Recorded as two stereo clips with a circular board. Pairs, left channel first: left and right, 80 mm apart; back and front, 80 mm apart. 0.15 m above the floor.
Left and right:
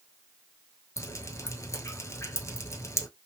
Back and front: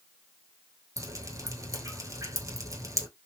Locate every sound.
1.0 s dripping: 40° left, 0.9 m